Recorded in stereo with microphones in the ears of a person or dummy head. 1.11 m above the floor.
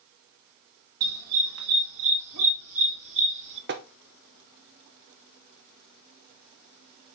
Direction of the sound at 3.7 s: 50° right (ahead or behind).